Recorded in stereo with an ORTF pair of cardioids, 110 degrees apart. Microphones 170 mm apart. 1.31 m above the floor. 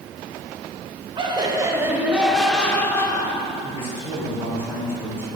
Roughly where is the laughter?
Ahead right.